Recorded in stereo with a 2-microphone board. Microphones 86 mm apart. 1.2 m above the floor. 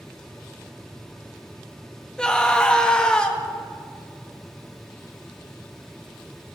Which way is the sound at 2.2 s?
10° left (ahead or behind).